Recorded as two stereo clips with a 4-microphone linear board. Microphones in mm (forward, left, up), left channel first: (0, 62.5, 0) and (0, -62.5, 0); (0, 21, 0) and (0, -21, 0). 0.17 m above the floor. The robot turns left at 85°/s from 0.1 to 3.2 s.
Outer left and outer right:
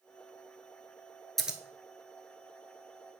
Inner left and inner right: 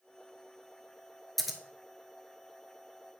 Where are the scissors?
Centre (ahead or behind), 0.9 m; by 1.6 s 15° right (ahead or behind), 0.9 m.